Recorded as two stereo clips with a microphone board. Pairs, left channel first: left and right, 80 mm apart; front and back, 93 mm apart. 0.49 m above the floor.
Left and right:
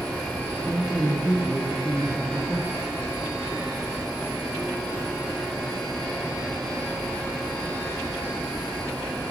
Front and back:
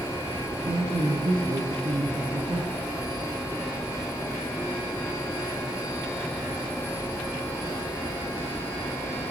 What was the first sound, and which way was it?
A man speaking, 175° left.